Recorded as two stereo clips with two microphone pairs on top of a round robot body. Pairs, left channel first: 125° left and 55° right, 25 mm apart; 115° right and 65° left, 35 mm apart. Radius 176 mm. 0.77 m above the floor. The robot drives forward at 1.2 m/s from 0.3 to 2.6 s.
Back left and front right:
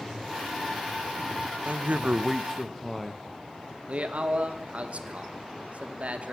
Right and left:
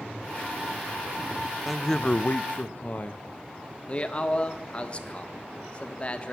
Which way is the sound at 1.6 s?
30° right.